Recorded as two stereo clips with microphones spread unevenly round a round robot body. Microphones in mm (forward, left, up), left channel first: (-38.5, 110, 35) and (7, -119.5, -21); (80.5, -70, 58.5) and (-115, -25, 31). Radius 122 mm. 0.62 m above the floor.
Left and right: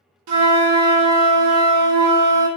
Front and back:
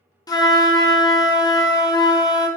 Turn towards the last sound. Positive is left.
turn(degrees=-85)